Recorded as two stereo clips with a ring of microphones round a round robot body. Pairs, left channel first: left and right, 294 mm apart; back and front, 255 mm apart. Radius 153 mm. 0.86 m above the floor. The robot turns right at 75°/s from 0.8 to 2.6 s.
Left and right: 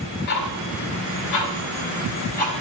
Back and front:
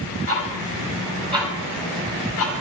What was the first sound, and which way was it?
Ticking, 30° left.